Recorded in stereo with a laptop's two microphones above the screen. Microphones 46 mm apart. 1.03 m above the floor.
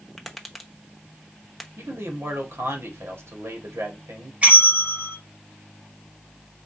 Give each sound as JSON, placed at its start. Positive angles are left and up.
{"t": 0.2, "sound": "tapping", "side_deg": 5, "distance_m": 0.9}
{"t": 1.8, "sound": "a man speaking", "side_deg": -75, "distance_m": 1.8}
{"t": 4.4, "sound": "a bell", "side_deg": -35, "distance_m": 1.9}